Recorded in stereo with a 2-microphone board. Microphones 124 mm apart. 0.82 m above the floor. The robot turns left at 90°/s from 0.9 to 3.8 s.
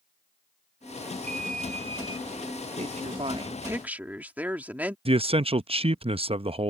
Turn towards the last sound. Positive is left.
turn(degrees=-50)  # may be behind; listen again after turning